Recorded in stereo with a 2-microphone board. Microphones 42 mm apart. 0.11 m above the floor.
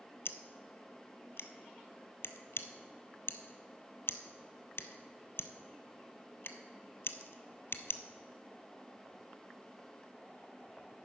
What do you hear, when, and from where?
0.2 s scissors: 70° left (ahead or behind), 0.7 m